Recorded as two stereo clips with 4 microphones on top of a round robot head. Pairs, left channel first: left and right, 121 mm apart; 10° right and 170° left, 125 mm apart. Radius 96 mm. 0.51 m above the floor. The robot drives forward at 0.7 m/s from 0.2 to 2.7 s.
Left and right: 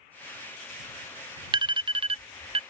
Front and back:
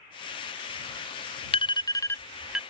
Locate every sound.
1.5 s an alarm: 45° right; by 2.6 s 105° right